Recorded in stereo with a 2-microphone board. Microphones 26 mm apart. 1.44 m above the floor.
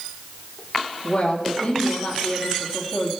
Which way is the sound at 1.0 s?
40° left (ahead or behind).